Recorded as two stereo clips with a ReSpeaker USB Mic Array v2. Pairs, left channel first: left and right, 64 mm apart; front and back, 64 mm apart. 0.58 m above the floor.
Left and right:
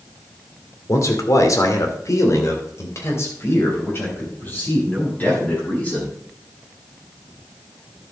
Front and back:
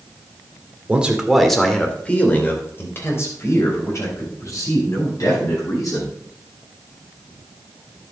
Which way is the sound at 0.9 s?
110° left.